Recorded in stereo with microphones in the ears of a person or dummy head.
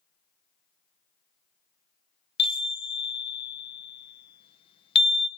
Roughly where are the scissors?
I don't hear scissors.